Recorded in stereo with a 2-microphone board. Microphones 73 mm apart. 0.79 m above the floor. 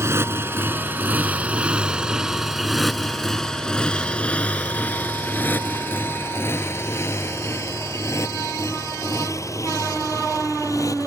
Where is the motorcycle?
40° right (ahead or behind); by 11.1 s 50° left (ahead or behind).